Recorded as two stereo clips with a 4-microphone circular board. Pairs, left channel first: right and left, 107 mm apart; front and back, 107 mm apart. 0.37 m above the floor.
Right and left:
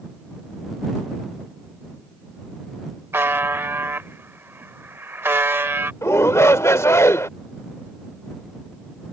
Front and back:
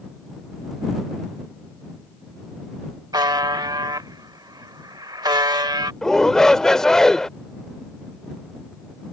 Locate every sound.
3.1 s a buzzer: 150° left
6.0 s a shout: 80° right